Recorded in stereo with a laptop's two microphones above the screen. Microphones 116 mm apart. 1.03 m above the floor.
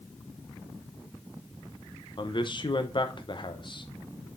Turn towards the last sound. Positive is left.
turn(degrees=45)  # may be behind; listen again after turning